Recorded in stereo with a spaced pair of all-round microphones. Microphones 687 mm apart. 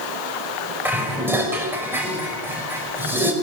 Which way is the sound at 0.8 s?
5° right (ahead or behind).